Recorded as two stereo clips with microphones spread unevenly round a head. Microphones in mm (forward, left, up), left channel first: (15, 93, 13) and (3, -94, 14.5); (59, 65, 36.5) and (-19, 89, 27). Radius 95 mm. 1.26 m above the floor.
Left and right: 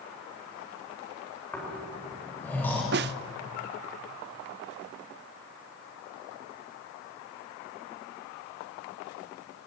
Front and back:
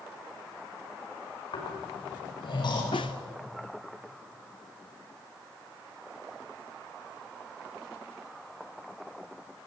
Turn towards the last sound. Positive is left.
turn(degrees=-65)